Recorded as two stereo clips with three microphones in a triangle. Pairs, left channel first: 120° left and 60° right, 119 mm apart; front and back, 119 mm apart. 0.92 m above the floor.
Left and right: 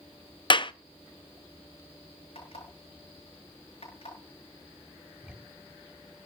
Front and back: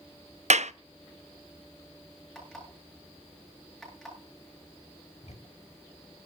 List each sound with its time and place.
0.5 s a clap: 165° left, 0.6 m
2.4 s an alarm clock: 85° left, 8.5 m
5.2 s ticking: 20° left, 1.4 m